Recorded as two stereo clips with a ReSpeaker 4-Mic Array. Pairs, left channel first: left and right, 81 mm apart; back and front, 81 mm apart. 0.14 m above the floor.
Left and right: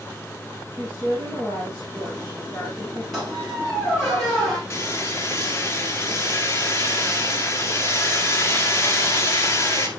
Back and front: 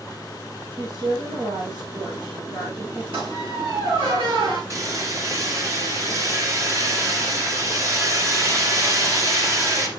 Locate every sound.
0.7 s a woman speaking: 20° left, 6 m
3.1 s a squeak: 5° left, 5 m
4.7 s hammering: 40° left, 2 m